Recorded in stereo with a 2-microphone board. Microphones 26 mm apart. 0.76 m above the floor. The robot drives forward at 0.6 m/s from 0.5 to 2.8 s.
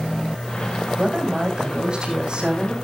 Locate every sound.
1.0 s a woman speaking: 40° right (ahead or behind), 5.5 m; by 2.7 s 35° right (ahead or behind), 6.5 m